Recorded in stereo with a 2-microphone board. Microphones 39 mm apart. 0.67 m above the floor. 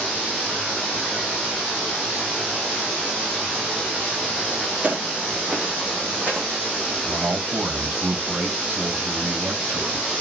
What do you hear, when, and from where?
4.8 s footsteps: 35° right (ahead or behind), 0.8 m; by 6.5 s 50° right (ahead or behind), 2 m
7.0 s a man speaking: 55° right (ahead or behind), 3 m